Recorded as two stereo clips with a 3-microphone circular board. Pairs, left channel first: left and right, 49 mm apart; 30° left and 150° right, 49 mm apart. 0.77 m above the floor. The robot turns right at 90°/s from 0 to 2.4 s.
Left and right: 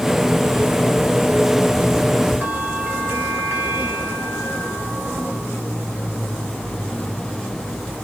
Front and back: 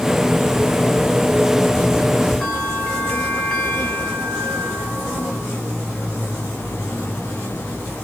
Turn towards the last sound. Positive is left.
turn(degrees=-45)